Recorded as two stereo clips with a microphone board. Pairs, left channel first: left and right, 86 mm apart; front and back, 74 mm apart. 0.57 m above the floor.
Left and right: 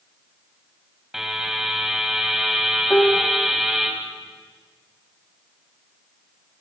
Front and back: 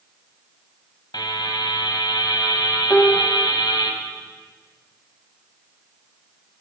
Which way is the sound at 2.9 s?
70° left.